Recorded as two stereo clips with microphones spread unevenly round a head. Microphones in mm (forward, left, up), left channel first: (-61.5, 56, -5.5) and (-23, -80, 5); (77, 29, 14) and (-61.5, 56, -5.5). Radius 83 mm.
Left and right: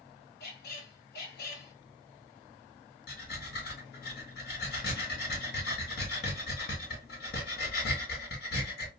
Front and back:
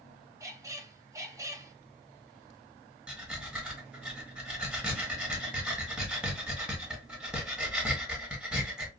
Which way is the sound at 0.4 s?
100° left.